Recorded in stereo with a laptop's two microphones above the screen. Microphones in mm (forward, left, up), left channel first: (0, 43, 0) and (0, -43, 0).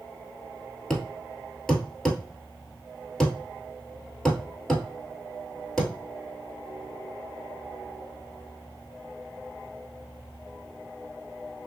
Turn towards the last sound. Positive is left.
turn(degrees=5)  # may be behind; listen again after turning